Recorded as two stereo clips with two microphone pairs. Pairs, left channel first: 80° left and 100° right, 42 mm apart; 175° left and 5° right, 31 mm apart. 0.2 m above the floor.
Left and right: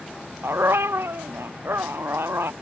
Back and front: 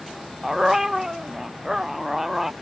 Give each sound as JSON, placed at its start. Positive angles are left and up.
{"t": 0.4, "sound": "a dog barking", "azimuth_deg": -80}